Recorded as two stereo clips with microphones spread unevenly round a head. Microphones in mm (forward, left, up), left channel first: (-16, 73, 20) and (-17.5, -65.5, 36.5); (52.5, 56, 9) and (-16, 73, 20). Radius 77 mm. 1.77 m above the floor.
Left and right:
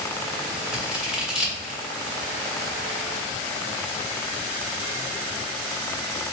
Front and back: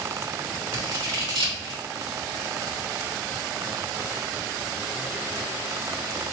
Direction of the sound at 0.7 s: 175° right.